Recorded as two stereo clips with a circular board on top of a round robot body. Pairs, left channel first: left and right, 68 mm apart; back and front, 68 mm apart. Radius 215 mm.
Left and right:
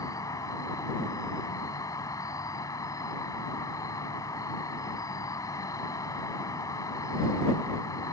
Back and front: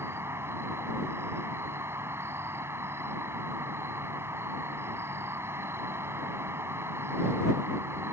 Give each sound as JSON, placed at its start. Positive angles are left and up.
{"t": 0.0, "sound": "an insect", "azimuth_deg": 55}